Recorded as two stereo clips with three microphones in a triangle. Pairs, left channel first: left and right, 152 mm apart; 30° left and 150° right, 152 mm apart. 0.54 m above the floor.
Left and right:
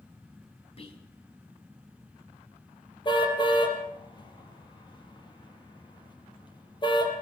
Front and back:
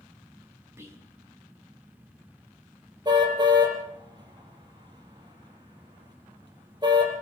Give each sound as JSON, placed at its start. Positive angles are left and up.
{"t": 0.8, "sound": "whispering", "azimuth_deg": 140, "distance_m": 5.0}
{"t": 3.0, "sound": "a car horn", "azimuth_deg": 150, "distance_m": 5.5}